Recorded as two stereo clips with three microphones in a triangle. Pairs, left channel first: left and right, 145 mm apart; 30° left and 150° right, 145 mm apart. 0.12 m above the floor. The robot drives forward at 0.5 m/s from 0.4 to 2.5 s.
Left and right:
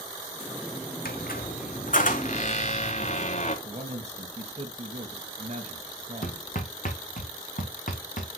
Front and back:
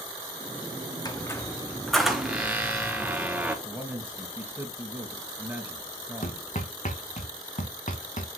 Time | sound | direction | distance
1.1 | a squeak | 95° left | 0.9 m
3.6 | a man speaking | 80° right | 2 m
6.2 | hammering | 65° left | 2.5 m